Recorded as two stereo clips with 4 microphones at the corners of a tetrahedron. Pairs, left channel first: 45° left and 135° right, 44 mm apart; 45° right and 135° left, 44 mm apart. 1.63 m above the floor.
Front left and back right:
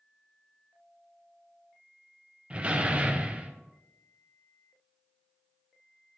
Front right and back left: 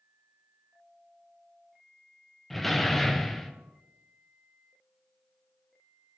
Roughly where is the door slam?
Behind right.